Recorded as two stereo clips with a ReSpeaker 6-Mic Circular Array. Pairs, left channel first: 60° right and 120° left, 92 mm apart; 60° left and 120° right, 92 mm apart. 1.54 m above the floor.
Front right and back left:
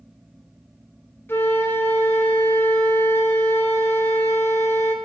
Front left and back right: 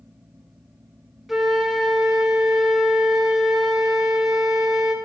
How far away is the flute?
About 0.8 m.